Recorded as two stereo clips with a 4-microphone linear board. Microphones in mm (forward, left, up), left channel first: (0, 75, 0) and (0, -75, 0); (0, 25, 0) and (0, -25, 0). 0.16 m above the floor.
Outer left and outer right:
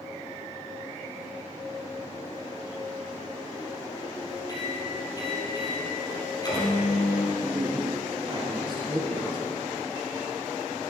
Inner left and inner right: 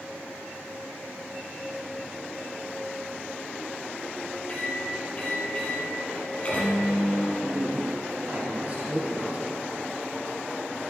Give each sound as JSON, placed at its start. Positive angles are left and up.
{"t": 4.5, "sound": "a microwave", "side_deg": 25, "distance_m": 5.0}
{"t": 7.3, "sound": "a man speaking", "side_deg": -35, "distance_m": 4.0}